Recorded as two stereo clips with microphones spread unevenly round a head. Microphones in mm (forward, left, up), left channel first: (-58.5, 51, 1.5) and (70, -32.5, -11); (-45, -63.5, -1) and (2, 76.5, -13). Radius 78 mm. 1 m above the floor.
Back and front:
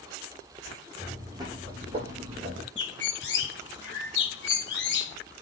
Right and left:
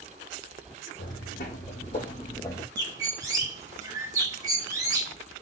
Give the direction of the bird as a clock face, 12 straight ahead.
7 o'clock.